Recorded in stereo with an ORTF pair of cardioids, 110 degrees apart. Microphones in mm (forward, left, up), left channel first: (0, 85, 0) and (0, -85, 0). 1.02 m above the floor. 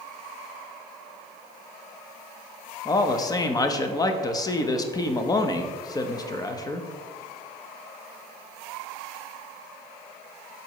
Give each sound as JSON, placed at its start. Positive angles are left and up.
{"t": 2.9, "sound": "a man speaking", "azimuth_deg": 20, "distance_m": 0.9}